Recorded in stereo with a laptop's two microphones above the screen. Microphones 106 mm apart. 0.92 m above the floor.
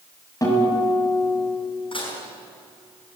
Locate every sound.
0.4 s a guitar: 30° left (ahead or behind), 6 m
1.9 s dishes clattering: 55° left (ahead or behind), 5.5 m